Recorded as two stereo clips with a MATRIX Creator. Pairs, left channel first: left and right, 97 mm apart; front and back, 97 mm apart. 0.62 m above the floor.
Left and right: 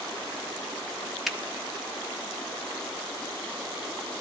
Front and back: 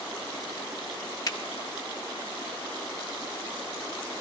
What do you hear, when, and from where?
1.3 s a finger snap: straight ahead, 1.1 m